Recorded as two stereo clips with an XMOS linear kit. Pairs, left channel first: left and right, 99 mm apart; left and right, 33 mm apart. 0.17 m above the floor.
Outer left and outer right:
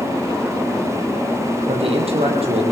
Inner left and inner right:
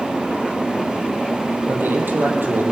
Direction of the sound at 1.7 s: 75° right (ahead or behind).